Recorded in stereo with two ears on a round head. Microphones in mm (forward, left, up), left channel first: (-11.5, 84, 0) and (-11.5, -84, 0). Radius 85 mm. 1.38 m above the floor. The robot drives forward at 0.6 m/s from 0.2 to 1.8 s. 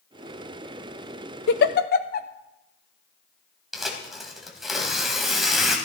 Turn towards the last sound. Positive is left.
turn(degrees=0)  # may be behind; listen again after turning